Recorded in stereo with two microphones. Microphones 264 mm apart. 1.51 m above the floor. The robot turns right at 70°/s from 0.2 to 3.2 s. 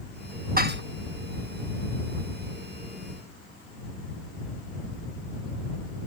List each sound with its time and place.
0.6 s dishes clattering: 35° right (ahead or behind); by 0.8 s 45° right (ahead or behind)